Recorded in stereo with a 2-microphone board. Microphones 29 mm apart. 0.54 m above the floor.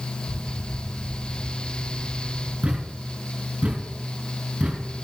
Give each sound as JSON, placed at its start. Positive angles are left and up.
{"t": 0.3, "sound": "an explosion", "side_deg": 45, "distance_m": 1.4}
{"t": 2.6, "sound": "a thud", "side_deg": -40, "distance_m": 3.0}